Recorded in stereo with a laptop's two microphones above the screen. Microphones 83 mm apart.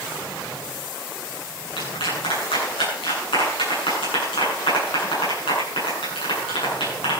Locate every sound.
1.8 s a clap: 85° left, 9.5 m